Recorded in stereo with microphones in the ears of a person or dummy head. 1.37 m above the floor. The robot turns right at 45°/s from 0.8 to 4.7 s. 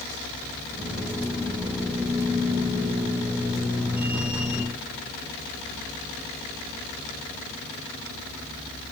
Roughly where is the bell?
I don't hear a bell.